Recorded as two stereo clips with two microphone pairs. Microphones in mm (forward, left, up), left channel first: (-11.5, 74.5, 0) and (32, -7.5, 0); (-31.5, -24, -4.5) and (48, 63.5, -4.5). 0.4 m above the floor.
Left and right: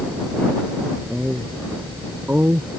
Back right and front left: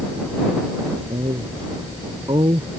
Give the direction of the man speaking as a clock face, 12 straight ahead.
11 o'clock.